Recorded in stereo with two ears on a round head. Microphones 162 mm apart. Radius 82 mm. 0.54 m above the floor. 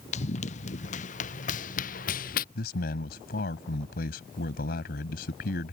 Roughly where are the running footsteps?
Left.